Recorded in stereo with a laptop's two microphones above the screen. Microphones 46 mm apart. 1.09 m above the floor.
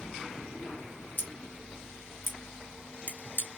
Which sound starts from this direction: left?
Scissors, at 1.2 s.